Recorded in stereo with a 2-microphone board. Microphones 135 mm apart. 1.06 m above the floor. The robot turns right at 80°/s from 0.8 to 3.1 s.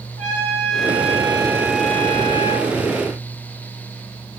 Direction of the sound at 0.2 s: 80° right.